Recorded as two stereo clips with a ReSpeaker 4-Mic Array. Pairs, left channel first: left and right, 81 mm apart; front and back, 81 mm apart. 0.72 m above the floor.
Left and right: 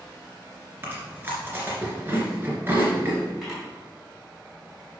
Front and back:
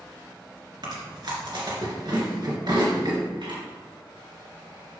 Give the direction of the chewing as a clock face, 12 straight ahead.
5 o'clock.